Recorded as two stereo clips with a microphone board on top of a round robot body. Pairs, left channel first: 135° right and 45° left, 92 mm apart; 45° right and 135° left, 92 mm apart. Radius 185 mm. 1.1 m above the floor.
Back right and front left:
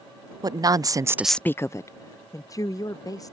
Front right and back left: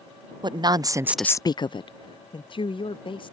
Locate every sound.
0.4 s a woman speaking: 95° left; by 3.3 s 80° right